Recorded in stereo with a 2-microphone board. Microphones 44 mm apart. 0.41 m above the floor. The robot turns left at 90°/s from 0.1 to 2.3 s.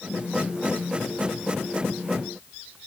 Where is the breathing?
No breathing in this recording.